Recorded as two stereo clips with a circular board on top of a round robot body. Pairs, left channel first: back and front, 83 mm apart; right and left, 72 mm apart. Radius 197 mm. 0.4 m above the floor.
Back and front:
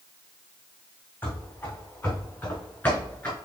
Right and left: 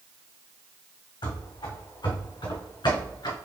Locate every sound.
1.2 s running footsteps: 110° right, 2 m; by 3.4 s 105° right, 3.5 m